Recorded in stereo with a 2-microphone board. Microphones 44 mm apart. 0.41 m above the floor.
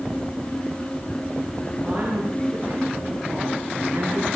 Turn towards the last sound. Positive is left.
turn(degrees=-80)